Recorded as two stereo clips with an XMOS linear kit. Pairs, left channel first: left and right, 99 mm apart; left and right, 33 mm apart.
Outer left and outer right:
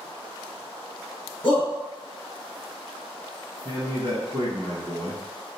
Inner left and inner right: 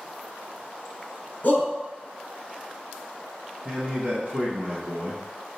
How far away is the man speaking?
About 1.4 m.